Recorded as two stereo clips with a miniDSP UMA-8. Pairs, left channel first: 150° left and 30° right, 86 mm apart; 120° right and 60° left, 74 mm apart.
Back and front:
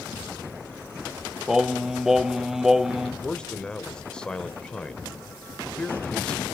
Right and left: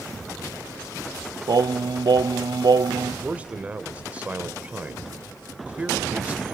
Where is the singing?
55° left, 0.6 m.